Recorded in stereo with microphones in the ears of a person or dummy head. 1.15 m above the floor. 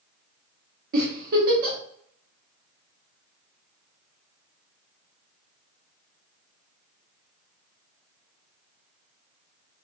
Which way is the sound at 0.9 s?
55° right (ahead or behind).